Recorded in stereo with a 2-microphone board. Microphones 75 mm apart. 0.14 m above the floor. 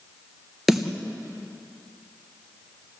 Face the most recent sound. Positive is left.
turn(degrees=0)  # may be behind; listen again after turning